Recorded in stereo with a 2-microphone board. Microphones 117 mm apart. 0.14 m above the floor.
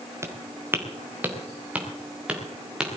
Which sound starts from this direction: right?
Footsteps, at 0.2 s.